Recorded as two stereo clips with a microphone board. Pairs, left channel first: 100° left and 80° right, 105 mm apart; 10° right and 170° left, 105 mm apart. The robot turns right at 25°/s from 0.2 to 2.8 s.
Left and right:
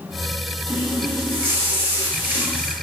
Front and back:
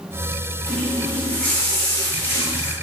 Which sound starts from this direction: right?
A running tap, at 0.7 s.